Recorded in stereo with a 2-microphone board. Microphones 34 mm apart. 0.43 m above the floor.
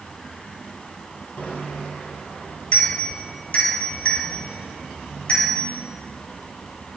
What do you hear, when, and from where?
1.4 s a bicycle bell: 55° left (ahead or behind), 7 m; by 5.6 s 40° left (ahead or behind), 8 m